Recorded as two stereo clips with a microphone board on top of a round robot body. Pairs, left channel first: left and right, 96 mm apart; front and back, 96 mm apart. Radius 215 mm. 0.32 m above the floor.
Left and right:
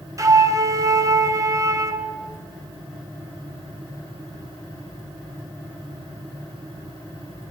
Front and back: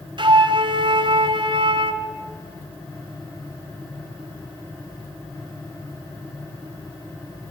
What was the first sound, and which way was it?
A flute, 145° right.